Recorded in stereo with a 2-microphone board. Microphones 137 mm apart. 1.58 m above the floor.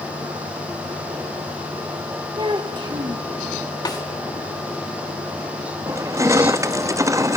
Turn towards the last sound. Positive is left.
turn(degrees=-20)  # may be behind; listen again after turning